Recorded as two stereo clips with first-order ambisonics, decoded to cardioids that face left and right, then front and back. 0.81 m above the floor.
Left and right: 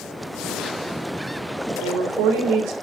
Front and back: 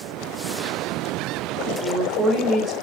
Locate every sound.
1.7 s a woman speaking: 120° right, 1.3 m